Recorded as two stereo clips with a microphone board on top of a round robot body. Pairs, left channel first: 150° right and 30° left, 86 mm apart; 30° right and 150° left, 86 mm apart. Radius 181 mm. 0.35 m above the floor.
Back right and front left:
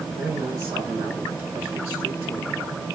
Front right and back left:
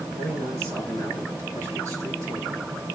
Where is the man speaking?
90° left, 6.5 m; by 2.6 s 95° left, 8 m.